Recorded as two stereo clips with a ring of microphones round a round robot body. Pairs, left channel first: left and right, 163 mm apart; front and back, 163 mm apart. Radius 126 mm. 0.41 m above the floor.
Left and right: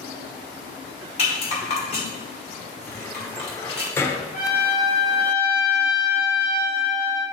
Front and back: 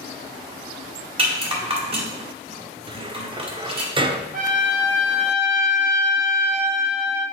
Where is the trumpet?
150° left, 3 m.